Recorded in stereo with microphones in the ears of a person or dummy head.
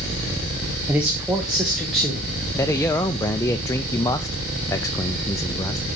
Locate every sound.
0.9 s a man speaking: 10° right (ahead or behind), 1.2 m; by 2.3 s 5° left (ahead or behind), 1.8 m
2.6 s a man speaking: 10° left (ahead or behind), 0.5 m